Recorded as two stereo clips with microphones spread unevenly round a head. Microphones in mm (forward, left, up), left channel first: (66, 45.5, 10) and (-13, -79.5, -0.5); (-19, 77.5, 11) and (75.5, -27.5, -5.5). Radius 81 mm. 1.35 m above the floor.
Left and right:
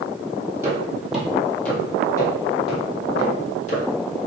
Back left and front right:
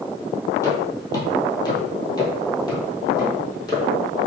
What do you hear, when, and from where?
0.6 s footsteps: 165° left, 1.5 m; by 3.8 s 80° left, 2 m